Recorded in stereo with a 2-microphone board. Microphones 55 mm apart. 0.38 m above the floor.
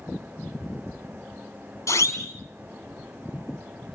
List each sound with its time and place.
1.9 s a siren: 70° left (ahead or behind), 3.5 m